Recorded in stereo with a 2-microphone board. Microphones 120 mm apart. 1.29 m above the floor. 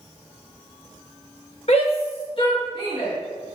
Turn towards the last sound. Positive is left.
turn(degrees=45)  # may be behind; listen again after turning